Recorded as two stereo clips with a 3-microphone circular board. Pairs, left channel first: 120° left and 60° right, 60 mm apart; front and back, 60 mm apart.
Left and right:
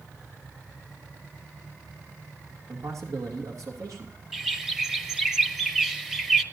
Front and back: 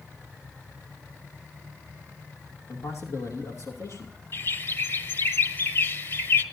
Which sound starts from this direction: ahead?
A bird, at 4.3 s.